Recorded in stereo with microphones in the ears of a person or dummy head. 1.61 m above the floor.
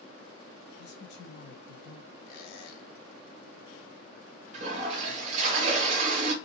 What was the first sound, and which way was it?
A man speaking, 60° left (ahead or behind).